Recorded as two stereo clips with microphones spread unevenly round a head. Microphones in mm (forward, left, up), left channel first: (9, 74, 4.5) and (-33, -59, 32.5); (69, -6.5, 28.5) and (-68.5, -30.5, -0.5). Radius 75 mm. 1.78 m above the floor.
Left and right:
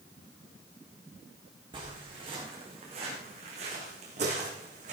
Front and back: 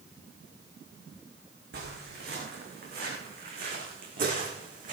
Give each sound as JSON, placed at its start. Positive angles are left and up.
{"t": 1.7, "sound": "footsteps", "azimuth_deg": -160, "distance_m": 6.5}